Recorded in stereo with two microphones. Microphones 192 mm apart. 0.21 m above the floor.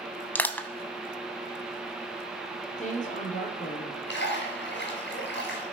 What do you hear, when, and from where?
0.3 s crushing: 10° left (ahead or behind), 0.7 m
2.8 s a woman speaking: 40° left (ahead or behind), 4.5 m
4.1 s a splash: 65° left (ahead or behind), 4 m